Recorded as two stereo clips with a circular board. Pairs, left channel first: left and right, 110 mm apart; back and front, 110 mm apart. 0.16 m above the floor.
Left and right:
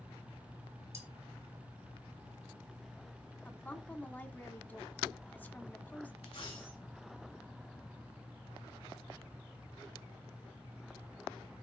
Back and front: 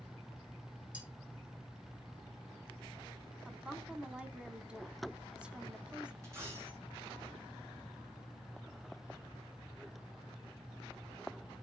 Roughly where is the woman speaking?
Ahead left.